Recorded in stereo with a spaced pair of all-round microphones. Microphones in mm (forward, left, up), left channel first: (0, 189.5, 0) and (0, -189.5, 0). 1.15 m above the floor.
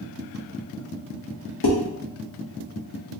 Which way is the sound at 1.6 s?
75° left (ahead or behind).